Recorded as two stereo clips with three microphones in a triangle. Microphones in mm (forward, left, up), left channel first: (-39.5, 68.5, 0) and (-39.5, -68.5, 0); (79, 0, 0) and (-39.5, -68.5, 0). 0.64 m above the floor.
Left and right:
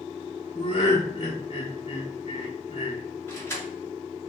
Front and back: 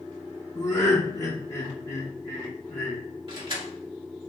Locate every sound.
0.6 s laughter: 85° left, 1.0 m
3.3 s keys jangling: 160° left, 1.5 m